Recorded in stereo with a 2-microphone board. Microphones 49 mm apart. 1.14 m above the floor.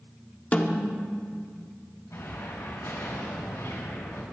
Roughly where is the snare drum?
Left.